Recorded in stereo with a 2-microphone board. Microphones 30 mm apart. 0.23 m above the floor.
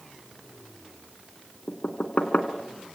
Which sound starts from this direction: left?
Knocking, at 1.7 s.